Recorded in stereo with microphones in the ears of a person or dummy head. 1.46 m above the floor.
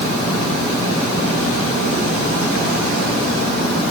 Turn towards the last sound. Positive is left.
No sound to turn to.